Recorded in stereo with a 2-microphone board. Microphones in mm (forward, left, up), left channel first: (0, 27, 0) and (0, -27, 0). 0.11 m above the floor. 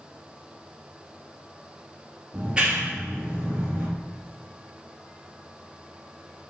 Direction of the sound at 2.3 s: 15° right (ahead or behind).